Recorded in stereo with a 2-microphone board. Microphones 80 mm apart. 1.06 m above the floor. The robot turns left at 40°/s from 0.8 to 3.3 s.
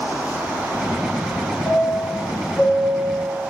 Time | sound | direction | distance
1.6 | a chime | 40° left (ahead or behind) | 0.9 m